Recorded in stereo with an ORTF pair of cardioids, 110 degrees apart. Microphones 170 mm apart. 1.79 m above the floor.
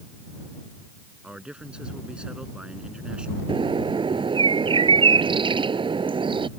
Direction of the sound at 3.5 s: 30° right.